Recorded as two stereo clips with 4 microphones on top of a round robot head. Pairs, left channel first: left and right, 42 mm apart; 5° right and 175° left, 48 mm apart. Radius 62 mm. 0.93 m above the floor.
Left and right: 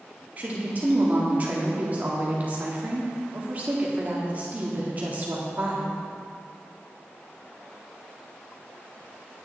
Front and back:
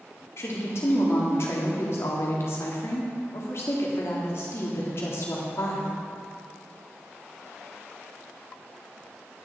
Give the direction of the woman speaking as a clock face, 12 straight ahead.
1 o'clock.